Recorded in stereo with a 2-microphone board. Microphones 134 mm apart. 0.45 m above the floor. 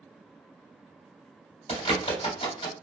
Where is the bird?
70° left (ahead or behind), 2 m.